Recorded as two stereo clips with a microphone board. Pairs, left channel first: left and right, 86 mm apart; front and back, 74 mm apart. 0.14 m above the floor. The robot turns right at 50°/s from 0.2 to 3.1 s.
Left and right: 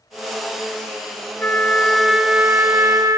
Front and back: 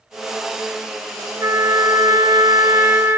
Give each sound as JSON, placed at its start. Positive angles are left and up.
{"t": 1.4, "sound": "a trumpet", "azimuth_deg": 150, "distance_m": 0.9}